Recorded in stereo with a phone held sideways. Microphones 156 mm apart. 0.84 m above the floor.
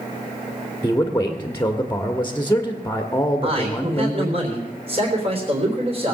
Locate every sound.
0.8 s a man speaking: 15° left (ahead or behind), 1.5 m
3.4 s a man speaking: 40° right (ahead or behind), 3.5 m